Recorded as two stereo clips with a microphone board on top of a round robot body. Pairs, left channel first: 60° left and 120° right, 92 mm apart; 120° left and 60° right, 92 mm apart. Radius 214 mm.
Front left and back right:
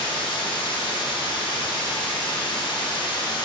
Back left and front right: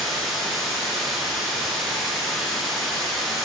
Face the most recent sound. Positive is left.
turn(degrees=30)